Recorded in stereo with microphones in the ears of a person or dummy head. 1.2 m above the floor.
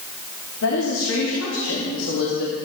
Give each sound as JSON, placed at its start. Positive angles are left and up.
{"t": 0.6, "sound": "a woman speaking", "side_deg": 70, "distance_m": 3.0}